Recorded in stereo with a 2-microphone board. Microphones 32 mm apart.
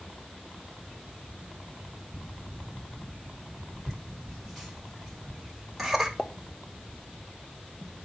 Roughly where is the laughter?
Centre.